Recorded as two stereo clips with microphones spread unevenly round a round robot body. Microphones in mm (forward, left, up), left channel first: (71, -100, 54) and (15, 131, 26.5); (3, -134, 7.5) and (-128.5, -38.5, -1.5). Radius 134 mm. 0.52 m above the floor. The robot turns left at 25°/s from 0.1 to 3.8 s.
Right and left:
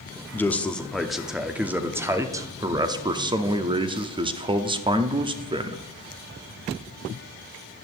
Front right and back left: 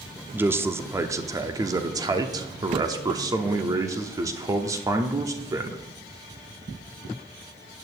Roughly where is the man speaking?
Behind.